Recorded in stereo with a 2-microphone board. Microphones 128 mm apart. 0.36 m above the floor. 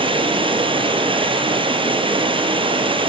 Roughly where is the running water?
Right.